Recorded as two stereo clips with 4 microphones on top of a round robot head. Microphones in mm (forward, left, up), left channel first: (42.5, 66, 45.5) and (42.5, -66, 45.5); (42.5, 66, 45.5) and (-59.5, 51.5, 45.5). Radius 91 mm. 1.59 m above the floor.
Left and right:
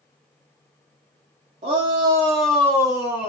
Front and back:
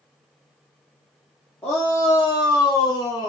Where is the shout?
70° right, 0.6 m; by 3.3 s 45° left, 0.7 m.